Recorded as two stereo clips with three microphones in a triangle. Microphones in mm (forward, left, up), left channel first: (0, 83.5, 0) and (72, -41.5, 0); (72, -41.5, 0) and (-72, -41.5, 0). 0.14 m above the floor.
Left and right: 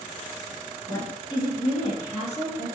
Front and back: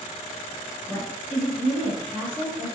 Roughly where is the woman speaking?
Ahead left.